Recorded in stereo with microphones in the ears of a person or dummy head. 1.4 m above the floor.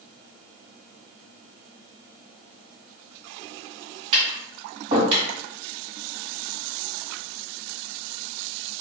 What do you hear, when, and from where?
4.1 s tapping: 35° right (ahead or behind), 1.6 m